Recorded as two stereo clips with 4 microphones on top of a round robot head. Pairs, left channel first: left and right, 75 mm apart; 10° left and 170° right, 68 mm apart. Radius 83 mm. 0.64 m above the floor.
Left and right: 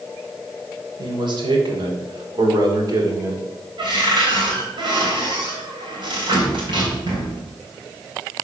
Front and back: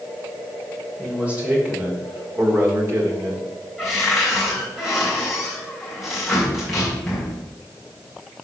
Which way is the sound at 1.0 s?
95° right.